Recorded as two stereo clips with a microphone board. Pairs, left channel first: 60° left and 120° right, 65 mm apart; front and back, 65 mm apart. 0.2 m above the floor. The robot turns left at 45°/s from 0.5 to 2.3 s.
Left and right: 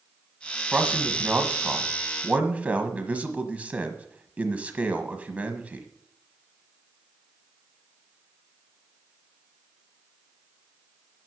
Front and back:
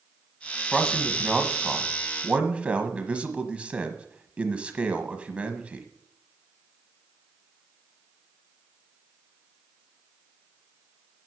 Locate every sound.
0.7 s a man speaking: 75° right, 1.2 m; by 5.9 s 145° right, 1.2 m